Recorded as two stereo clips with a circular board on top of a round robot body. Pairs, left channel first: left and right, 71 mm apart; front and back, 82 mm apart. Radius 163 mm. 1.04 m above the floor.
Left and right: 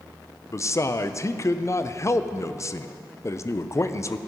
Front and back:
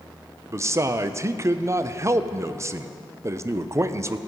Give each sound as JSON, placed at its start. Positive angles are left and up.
{"t": 0.5, "sound": "a man speaking", "azimuth_deg": 130, "distance_m": 0.6}